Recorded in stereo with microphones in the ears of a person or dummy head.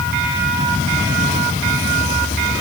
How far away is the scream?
I don't hear a scream.